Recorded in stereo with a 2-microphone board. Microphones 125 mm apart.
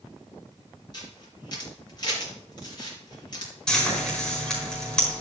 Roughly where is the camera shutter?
Left.